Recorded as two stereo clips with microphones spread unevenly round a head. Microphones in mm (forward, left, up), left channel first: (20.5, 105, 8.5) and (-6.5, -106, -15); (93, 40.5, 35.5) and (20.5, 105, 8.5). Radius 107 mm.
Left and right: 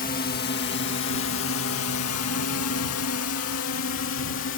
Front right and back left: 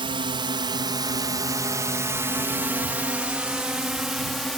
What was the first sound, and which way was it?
A drone, 135° left.